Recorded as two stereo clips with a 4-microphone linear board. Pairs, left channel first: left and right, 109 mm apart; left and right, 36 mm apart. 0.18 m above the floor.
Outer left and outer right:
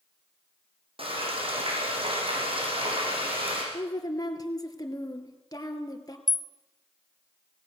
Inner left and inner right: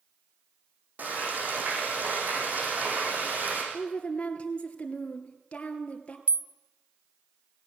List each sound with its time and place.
1.0 s frying: 60° right (ahead or behind), 6 m
3.7 s a woman speaking: 35° left (ahead or behind), 2.5 m
6.3 s a rattle: 40° right (ahead or behind), 0.7 m